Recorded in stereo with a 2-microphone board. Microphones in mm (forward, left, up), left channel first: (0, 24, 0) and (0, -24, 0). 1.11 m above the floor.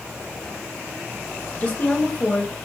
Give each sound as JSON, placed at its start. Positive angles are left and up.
{"t": 1.6, "sound": "a woman speaking", "side_deg": 30, "distance_m": 1.1}